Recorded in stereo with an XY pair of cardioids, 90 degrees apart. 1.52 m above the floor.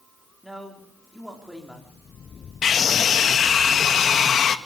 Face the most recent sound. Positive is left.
turn(degrees=60)